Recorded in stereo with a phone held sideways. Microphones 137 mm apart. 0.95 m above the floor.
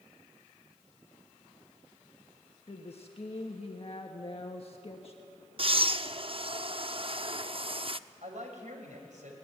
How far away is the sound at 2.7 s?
About 1.4 m.